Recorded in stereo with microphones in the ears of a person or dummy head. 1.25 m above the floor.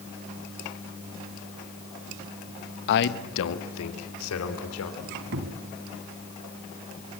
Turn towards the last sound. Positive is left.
turn(degrees=-55)  # may be behind; listen again after turning